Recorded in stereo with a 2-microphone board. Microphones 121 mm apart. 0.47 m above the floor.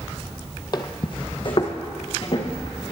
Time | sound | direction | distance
0.7 | footsteps | 40° left (ahead or behind) | 0.6 m